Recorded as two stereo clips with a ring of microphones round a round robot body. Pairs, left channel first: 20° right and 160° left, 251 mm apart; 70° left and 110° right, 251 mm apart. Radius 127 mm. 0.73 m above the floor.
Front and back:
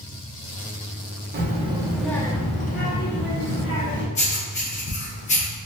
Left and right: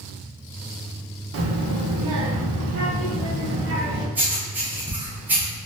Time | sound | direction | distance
1.3 | a child speaking | 150° right | 0.7 m
4.2 | writing | 40° right | 0.9 m